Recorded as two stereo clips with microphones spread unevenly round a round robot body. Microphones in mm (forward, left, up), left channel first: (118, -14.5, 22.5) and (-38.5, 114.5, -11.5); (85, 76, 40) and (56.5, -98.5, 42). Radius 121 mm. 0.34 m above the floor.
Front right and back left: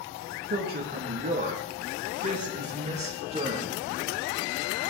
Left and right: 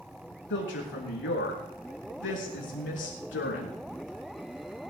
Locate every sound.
0.5 s a woman speaking: 105° left, 5 m; by 3.7 s 80° left, 5.5 m